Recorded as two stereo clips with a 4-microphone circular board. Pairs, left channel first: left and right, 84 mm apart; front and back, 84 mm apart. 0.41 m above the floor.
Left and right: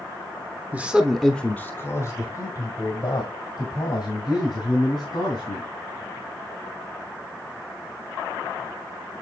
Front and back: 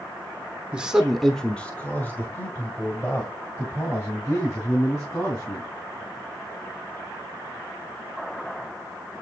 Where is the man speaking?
130° right, 0.9 m; by 5.7 s 55° left, 3.5 m.